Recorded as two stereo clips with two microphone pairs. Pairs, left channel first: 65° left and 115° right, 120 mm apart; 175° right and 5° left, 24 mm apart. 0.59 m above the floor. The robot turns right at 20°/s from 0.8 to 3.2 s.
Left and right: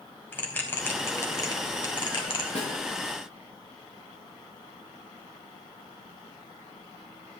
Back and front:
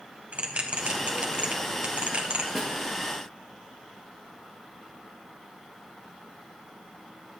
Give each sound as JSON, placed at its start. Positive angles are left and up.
{"t": 0.3, "sound": "a bell", "azimuth_deg": -10, "distance_m": 4.0}
{"t": 2.5, "sound": "a snare drum", "azimuth_deg": 80, "distance_m": 8.0}